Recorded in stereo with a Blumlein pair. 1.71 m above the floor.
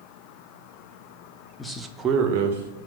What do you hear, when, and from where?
1.6 s a man speaking: 10° left, 0.6 m; by 2.8 s 70° right, 0.7 m